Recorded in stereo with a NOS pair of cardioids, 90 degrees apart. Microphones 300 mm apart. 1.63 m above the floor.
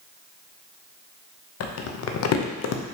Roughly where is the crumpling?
Ahead left.